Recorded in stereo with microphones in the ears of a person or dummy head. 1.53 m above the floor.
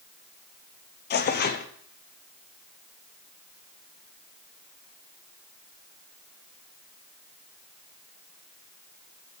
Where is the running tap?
No running tap in this recording.